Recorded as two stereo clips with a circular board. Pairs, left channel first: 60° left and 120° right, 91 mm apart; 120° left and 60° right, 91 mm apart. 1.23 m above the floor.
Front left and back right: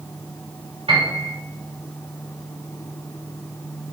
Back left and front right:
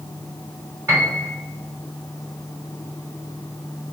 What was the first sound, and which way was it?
A piano, 115° right.